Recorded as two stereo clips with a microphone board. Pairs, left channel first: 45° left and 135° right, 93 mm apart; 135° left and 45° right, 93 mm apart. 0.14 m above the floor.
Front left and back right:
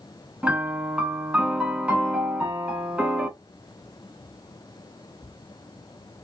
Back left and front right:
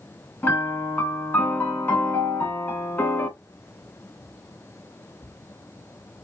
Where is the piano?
165° left, 0.7 m.